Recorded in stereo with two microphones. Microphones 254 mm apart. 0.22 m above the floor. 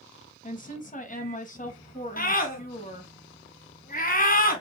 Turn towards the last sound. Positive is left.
turn(degrees=35)  # may be behind; listen again after turning